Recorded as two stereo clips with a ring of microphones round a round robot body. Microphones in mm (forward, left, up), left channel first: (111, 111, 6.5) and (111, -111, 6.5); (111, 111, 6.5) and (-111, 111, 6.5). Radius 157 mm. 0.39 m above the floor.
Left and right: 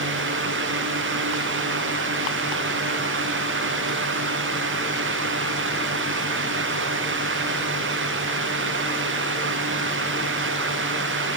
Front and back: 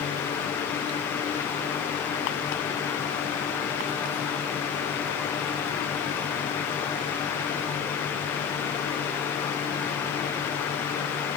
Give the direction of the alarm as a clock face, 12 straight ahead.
I don't hear an alarm.